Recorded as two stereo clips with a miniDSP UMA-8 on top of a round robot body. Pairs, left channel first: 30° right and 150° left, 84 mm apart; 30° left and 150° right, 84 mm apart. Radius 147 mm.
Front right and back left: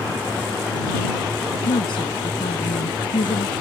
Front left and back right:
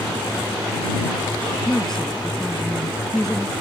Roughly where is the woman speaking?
Ahead right.